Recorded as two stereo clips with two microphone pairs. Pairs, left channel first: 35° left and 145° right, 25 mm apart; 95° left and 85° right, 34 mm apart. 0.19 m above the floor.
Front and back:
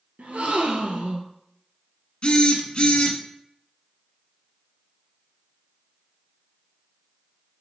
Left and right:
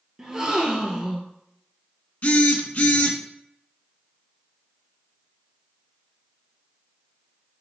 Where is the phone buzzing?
65° left, 0.7 m.